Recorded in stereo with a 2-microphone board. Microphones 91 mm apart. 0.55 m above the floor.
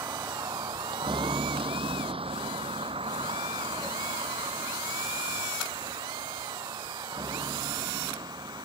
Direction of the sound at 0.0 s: 40° right (ahead or behind).